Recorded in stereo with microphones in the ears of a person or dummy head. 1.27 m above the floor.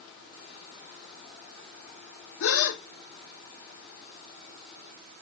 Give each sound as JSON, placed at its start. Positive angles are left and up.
{"t": 2.4, "sound": "a gasp", "side_deg": 75, "distance_m": 1.5}